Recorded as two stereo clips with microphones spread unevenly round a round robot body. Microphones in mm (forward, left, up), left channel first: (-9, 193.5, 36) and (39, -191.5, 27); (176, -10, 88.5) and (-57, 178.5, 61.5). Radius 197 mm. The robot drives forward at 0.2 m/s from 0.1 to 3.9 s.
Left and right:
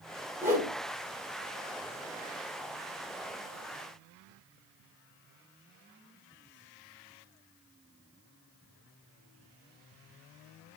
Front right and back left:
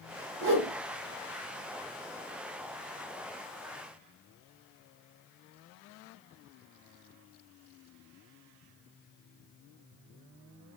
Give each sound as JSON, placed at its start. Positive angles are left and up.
{"t": 0.4, "sound": "a whoosh", "azimuth_deg": -165, "distance_m": 1.0}